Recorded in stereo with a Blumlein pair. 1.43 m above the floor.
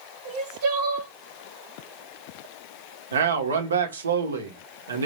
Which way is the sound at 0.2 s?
45° right.